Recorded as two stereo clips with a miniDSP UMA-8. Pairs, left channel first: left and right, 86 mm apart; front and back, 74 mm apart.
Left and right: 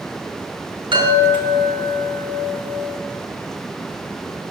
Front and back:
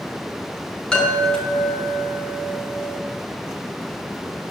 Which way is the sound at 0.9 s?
80° right.